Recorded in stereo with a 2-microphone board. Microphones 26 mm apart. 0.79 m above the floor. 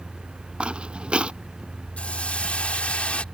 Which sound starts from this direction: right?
Footsteps, at 0.6 s.